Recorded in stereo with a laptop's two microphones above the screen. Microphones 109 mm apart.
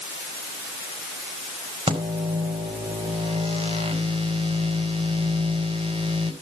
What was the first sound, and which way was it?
A microwave, 55° right (ahead or behind).